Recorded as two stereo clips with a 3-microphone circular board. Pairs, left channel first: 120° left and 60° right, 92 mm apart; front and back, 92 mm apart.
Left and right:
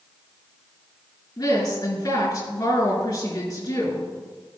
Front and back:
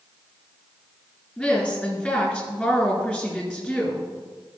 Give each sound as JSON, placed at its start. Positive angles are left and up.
{"t": 1.4, "sound": "a woman speaking", "azimuth_deg": 75, "distance_m": 4.0}